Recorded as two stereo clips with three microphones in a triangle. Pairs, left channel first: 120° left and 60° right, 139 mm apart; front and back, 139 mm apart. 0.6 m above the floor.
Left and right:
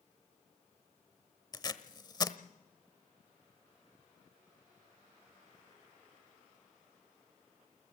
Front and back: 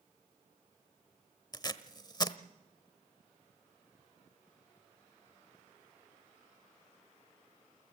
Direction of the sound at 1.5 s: 60° left.